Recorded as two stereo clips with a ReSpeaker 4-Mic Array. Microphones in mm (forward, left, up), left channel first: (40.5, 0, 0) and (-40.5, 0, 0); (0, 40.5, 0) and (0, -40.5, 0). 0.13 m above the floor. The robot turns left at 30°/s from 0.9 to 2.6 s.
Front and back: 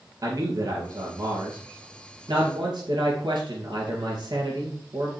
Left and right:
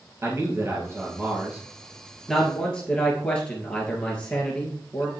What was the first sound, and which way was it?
A man speaking, 140° right.